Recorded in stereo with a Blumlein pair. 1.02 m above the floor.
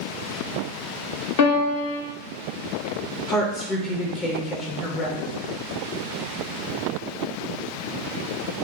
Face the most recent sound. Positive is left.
turn(degrees=25)